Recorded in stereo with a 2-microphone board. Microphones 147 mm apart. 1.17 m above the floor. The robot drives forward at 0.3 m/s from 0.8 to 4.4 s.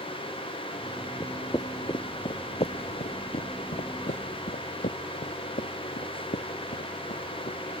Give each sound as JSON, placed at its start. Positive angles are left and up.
{"t": 1.2, "sound": "footsteps", "side_deg": 20}